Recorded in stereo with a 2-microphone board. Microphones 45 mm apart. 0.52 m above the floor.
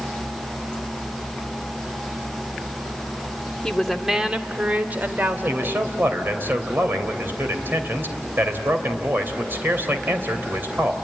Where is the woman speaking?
10° left (ahead or behind), 1.2 m; by 5.9 s 60° right (ahead or behind), 2.5 m.